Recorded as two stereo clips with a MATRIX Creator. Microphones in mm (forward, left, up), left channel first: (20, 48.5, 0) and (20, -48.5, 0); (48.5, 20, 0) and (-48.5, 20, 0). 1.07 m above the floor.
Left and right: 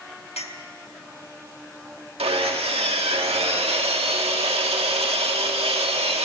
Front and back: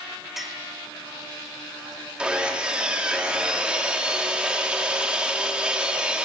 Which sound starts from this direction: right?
Sawing, at 2.2 s.